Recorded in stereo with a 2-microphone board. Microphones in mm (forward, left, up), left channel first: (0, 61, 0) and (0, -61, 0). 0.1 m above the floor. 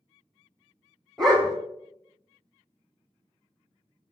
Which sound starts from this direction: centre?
A dog barking, at 1.2 s.